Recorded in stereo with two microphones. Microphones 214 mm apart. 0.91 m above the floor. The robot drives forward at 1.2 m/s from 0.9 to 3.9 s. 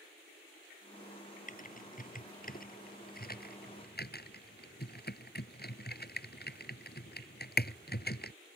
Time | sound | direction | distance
1.5 | typing on a keyboard | 35° left (ahead or behind) | ?